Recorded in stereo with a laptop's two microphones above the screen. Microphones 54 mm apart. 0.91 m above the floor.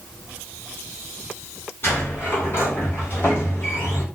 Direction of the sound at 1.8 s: 40° left (ahead or behind).